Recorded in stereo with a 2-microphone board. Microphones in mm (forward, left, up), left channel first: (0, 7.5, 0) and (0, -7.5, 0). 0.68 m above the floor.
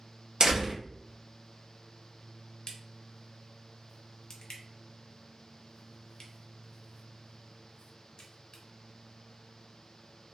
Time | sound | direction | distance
0.4 | a door slam | 60° right (ahead or behind) | 0.9 m
2.7 | a crack | 55° left (ahead or behind) | 0.8 m